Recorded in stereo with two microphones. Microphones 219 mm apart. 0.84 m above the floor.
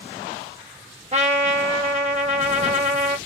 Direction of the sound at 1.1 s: 30° right (ahead or behind).